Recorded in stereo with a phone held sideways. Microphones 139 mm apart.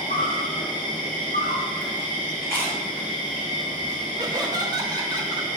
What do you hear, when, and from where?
0.0 s an insect: 75° left (ahead or behind), 1.7 m
2.4 s chewing: 15° left (ahead or behind), 1.3 m
4.2 s laughter: 25° right (ahead or behind), 0.9 m